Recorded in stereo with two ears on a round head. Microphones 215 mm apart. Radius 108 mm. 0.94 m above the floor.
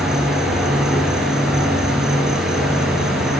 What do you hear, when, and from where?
0.0 s an insect: centre (ahead or behind), 7.5 m